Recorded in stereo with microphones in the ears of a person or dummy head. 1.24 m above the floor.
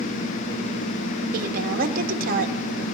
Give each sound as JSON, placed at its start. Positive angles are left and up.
{"t": 1.3, "sound": "a woman speaking", "side_deg": -55, "distance_m": 1.5}